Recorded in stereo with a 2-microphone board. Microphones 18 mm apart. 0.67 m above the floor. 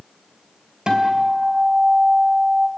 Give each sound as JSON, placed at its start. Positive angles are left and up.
{"t": 0.9, "sound": "a guitar", "side_deg": -45, "distance_m": 4.0}